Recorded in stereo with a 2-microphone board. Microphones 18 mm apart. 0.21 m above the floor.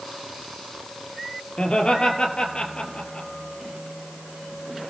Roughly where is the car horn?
I don't hear a car horn.